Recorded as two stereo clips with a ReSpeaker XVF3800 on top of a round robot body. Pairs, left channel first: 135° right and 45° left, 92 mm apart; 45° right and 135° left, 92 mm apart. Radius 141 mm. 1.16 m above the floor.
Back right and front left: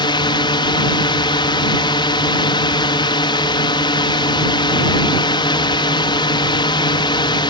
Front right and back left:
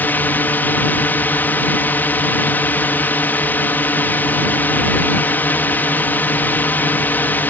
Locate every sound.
0.0 s a drone: 115° right